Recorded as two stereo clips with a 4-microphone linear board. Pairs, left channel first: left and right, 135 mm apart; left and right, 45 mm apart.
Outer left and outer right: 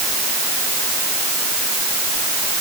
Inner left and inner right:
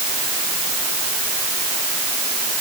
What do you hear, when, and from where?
Only background noise.